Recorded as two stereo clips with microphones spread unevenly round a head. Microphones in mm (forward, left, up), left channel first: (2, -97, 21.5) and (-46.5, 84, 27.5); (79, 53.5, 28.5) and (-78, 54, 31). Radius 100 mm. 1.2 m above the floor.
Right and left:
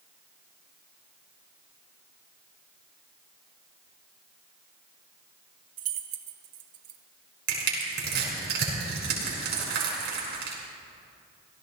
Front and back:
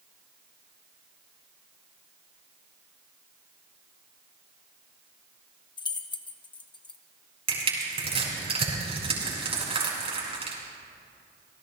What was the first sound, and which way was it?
Keys jangling, 60° left.